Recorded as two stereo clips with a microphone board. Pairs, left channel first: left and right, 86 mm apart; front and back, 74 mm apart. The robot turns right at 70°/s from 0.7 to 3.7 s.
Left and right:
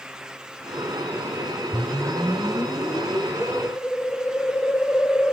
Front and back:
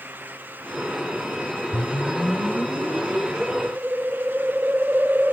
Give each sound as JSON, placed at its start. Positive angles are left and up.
{"t": 1.7, "sound": "a whoosh", "azimuth_deg": 35, "distance_m": 1.5}